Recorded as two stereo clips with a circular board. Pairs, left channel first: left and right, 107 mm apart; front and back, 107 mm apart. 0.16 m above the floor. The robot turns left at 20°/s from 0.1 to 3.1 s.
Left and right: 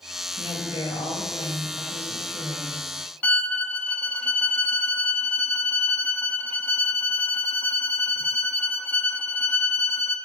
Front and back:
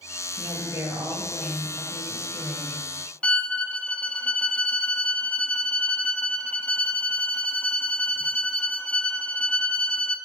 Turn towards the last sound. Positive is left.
turn(degrees=55)